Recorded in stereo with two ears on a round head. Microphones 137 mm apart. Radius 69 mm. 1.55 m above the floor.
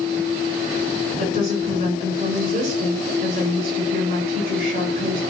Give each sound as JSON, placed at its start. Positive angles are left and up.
{"t": 1.2, "sound": "a woman speaking", "side_deg": -60, "distance_m": 6.0}